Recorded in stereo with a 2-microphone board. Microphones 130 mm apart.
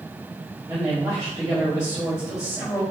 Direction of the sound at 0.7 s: 30° right (ahead or behind).